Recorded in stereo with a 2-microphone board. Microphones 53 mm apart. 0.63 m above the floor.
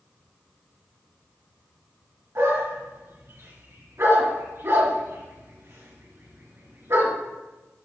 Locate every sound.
2.4 s a dog barking: 60° right (ahead or behind), 3 m